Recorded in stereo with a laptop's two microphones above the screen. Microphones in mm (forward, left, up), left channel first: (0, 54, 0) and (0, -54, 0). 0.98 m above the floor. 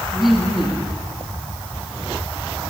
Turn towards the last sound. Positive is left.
turn(degrees=-5)  # may be behind; listen again after turning